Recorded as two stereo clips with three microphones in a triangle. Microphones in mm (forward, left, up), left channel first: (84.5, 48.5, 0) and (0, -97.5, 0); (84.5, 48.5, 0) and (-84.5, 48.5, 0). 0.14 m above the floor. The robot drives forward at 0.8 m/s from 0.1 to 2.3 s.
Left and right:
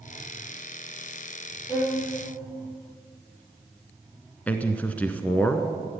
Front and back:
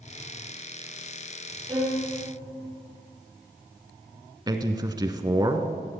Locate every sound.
1.7 s a violin: 120° left, 4 m; by 2.0 s 125° left, 4.5 m
4.5 s a man speaking: 135° left, 1.2 m